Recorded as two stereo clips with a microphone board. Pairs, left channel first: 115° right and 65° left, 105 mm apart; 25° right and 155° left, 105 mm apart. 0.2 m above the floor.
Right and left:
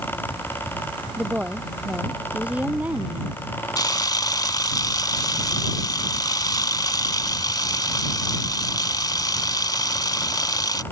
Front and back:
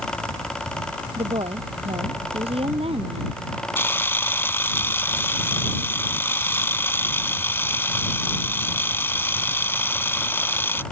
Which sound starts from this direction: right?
A camera shutter, at 3.8 s.